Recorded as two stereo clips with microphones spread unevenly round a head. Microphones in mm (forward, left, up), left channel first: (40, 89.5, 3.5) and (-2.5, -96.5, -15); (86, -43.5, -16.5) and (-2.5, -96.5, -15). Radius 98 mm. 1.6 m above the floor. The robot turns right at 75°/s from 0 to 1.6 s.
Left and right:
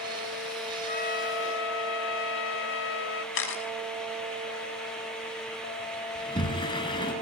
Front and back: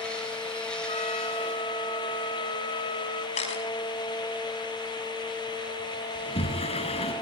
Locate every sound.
0.9 s a trumpet: 30° left, 1.1 m; by 3.2 s 85° left, 1.1 m
3.4 s a camera shutter: 65° left, 5.5 m
6.2 s a sliding door: 15° left, 6.5 m